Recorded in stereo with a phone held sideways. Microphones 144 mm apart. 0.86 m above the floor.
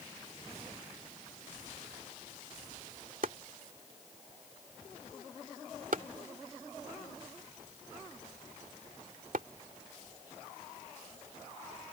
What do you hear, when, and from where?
3.2 s chopping: 75° right (ahead or behind)